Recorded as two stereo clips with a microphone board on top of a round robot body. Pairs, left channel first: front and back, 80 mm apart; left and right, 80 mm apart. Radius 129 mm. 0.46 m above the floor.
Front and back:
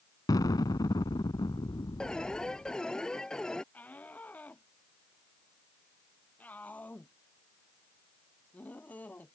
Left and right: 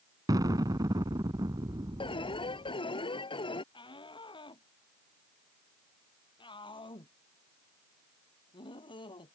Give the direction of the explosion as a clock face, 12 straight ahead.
1 o'clock.